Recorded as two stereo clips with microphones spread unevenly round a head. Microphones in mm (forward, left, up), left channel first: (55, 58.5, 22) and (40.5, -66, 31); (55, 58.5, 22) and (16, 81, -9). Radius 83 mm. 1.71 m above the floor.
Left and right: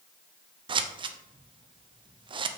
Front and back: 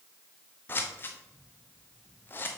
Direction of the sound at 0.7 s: 50° right.